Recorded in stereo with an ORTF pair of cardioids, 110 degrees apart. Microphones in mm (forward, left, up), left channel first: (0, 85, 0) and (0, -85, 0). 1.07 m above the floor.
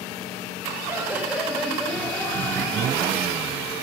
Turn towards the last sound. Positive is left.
turn(degrees=25)